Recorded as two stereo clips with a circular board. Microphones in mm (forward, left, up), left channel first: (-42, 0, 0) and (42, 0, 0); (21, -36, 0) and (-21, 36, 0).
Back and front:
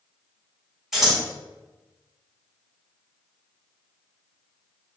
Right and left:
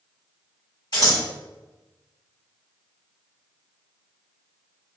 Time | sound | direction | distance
0.9 | scissors | 85° right | 1.9 m